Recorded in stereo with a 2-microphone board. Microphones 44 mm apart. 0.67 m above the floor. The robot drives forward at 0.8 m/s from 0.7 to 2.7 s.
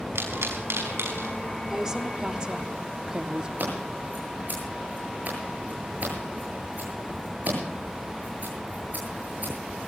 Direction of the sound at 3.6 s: 45° right (ahead or behind).